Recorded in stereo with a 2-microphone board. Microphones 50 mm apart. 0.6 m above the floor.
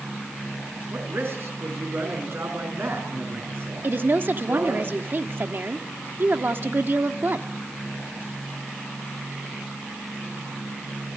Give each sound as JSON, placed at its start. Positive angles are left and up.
{"t": 0.9, "sound": "a man speaking", "side_deg": -55, "distance_m": 5.5}
{"t": 3.8, "sound": "a woman speaking", "side_deg": -45, "distance_m": 1.2}